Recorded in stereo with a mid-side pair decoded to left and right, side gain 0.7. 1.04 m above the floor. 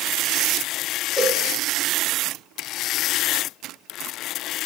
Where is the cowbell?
20° left, 1.0 m.